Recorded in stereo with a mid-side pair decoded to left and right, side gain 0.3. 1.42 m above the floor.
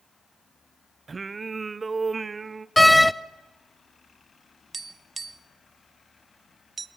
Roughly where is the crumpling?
No crumpling in this recording.